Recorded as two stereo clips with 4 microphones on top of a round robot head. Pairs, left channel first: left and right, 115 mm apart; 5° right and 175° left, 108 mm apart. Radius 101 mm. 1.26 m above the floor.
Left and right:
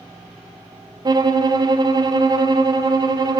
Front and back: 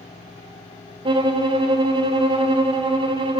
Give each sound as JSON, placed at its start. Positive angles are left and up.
{"t": 1.1, "sound": "a violin", "azimuth_deg": -145, "distance_m": 1.3}